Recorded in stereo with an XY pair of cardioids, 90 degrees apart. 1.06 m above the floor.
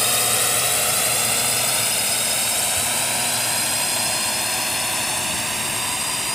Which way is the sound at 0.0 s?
10° left.